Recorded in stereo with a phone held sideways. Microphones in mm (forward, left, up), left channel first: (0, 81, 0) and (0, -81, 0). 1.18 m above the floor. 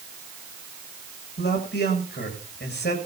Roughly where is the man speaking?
Left.